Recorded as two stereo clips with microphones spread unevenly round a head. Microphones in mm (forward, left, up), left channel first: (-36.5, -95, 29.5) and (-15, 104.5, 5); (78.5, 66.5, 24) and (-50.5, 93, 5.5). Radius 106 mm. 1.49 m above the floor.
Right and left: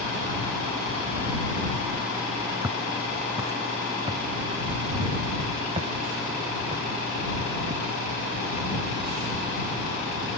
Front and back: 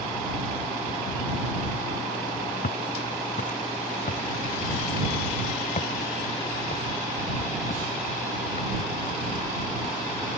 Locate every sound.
2.6 s footsteps: 5° left; by 10.4 s 25° left